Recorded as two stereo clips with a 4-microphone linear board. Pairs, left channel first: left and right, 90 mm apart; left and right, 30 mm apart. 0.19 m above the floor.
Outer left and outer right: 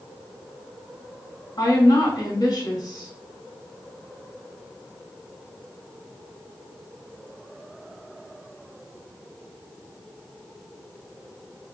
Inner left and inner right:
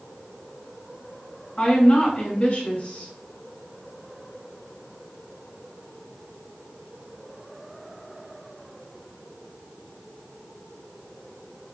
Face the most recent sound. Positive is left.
turn(degrees=50)  # may be behind; listen again after turning